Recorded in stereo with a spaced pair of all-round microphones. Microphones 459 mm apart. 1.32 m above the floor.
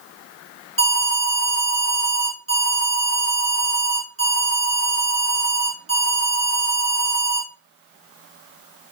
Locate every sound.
0.8 s an alarm: 25° right (ahead or behind), 8 m